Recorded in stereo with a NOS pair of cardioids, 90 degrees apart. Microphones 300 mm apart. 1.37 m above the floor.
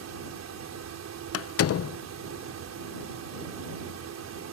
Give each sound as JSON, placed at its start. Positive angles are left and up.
{"t": 0.0, "sound": "a fan", "azimuth_deg": -55}
{"t": 1.3, "sound": "a door slam", "azimuth_deg": 50}